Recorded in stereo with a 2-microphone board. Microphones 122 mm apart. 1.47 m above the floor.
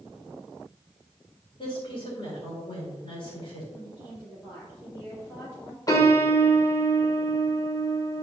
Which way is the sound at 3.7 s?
10° left (ahead or behind).